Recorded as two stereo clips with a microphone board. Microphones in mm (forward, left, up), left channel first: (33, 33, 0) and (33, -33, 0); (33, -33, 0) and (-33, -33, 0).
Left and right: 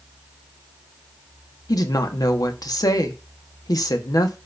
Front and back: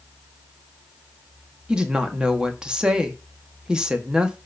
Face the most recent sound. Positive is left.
turn(degrees=105)